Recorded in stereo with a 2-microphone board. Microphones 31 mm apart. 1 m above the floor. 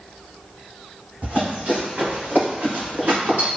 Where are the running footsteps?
55° right (ahead or behind), 1.8 m; by 3.5 s 65° right (ahead or behind), 3 m.